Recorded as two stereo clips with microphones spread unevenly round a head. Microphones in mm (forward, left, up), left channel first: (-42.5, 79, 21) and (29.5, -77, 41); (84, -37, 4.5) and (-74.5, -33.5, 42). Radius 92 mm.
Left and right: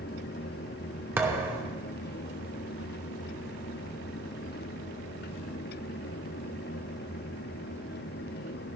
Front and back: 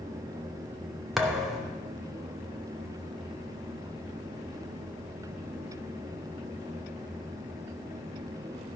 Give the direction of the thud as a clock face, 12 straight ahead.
4 o'clock.